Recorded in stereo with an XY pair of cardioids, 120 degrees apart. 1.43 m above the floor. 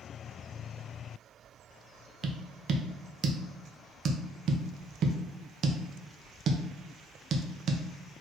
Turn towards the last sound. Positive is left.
turn(degrees=-45)